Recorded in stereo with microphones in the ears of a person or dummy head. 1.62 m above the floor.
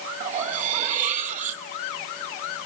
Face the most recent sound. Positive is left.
turn(degrees=-35)  # may be behind; listen again after turning